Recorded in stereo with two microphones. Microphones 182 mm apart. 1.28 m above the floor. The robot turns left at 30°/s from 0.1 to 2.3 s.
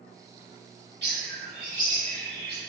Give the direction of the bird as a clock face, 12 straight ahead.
4 o'clock.